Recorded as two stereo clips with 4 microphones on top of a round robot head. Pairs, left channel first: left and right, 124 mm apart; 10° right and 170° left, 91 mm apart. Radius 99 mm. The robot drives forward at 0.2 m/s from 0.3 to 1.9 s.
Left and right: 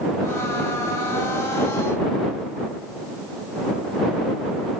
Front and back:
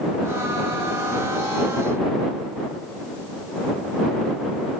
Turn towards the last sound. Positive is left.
No sound to turn to.